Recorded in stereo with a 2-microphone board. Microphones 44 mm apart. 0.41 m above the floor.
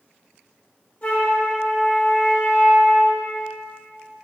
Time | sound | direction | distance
1.0 | a flute | 35° left (ahead or behind) | 0.9 m